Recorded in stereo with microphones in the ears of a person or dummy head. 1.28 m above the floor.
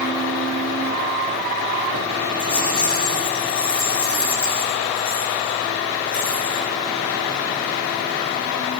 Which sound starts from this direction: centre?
A rattle, at 2.4 s.